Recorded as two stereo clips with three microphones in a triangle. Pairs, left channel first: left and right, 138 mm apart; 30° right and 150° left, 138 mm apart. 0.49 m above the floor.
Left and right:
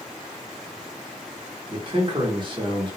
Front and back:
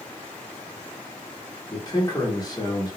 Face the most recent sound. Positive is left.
turn(degrees=-70)